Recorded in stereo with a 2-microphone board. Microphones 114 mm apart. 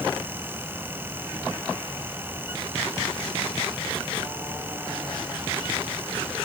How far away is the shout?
No shout in this recording.